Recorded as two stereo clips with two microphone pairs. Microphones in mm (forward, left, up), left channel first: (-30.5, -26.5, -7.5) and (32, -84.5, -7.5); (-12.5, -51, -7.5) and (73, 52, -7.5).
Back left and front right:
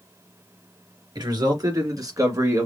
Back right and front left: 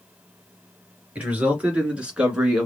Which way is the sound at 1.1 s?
25° right.